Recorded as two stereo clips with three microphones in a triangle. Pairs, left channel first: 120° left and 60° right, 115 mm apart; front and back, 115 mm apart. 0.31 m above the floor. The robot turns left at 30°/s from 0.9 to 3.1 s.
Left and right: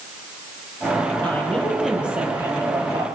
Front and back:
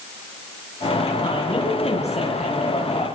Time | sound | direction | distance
1.2 | a woman speaking | 45° left | 8.5 m